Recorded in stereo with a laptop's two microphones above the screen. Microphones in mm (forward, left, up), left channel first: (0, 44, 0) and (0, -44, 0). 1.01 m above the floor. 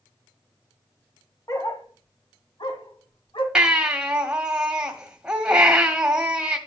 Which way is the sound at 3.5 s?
10° right (ahead or behind).